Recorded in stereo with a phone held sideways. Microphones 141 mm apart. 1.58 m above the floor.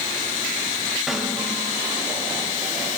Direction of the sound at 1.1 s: Centre (ahead or behind).